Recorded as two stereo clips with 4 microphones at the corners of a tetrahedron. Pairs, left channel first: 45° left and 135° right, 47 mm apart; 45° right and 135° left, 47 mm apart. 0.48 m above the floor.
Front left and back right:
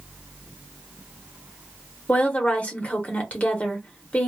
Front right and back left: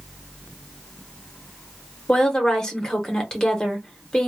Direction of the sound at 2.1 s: 20° left.